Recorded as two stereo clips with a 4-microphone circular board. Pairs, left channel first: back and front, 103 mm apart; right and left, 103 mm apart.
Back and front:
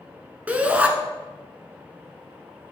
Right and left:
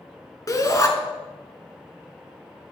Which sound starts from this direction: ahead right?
A shout, at 0.5 s.